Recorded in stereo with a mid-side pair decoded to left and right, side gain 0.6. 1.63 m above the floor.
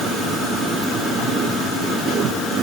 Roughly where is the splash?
No splash in this recording.